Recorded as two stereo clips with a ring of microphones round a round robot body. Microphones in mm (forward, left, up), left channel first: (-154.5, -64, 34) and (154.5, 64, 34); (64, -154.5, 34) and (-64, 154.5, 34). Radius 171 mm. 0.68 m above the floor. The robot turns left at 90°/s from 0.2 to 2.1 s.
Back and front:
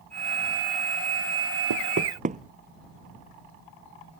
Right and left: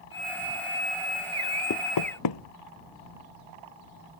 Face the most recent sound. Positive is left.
turn(degrees=-45)